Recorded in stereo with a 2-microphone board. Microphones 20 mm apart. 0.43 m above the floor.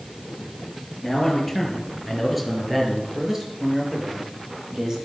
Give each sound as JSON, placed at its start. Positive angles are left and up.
{"t": 1.0, "sound": "a man speaking", "side_deg": 10, "distance_m": 7.0}